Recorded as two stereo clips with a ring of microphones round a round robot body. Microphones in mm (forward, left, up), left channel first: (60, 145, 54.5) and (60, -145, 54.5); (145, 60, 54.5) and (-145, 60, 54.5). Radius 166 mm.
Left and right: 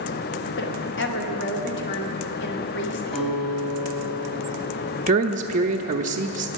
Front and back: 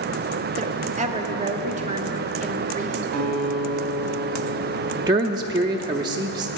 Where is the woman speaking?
125° left, 1.6 m.